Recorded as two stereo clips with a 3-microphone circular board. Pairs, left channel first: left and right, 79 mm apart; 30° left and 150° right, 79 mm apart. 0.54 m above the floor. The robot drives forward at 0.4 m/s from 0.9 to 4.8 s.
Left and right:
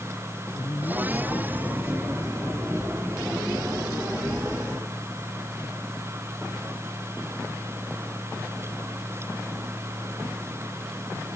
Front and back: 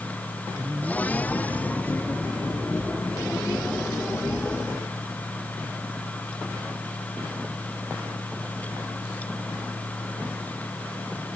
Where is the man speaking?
145° left; by 5.3 s 150° left.